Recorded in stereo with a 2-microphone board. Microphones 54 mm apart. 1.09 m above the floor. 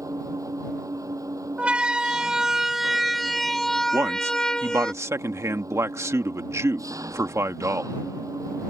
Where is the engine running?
90° right.